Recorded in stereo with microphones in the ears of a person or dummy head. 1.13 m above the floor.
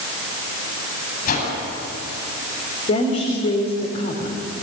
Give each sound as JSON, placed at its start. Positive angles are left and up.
{"t": 1.2, "sound": "a whoosh", "side_deg": 45, "distance_m": 8.5}
{"t": 2.9, "sound": "a woman speaking", "side_deg": 40, "distance_m": 4.5}